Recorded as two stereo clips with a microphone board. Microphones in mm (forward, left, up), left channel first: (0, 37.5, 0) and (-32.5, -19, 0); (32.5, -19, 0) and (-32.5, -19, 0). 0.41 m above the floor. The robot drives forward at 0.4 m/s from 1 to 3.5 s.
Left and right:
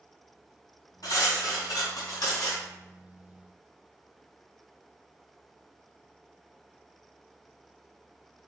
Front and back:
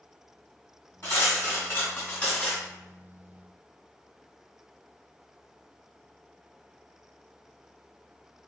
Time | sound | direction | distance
1.0 | cutlery clinking | 50° left | 1.7 m